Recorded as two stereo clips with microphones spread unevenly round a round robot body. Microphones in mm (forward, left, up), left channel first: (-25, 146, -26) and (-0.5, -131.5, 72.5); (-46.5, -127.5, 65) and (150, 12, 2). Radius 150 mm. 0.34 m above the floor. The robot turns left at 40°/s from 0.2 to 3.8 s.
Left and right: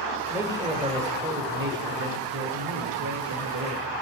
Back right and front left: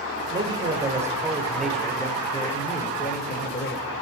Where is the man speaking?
25° left, 1.3 m; by 3.9 s 115° right, 1.3 m.